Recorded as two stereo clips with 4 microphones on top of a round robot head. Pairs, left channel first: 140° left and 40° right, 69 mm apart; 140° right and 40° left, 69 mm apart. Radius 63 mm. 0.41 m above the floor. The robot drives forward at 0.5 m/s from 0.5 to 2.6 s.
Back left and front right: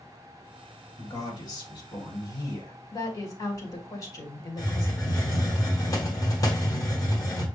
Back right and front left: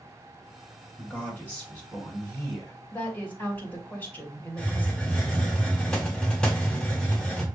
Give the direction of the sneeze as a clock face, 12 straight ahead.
No sneeze in this recording.